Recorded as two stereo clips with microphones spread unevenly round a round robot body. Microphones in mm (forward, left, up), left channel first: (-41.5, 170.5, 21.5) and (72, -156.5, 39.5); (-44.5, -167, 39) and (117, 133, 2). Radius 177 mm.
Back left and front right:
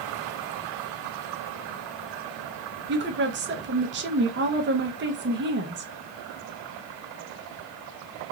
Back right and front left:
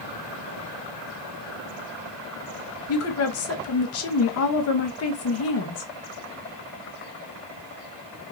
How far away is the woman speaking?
About 0.6 m.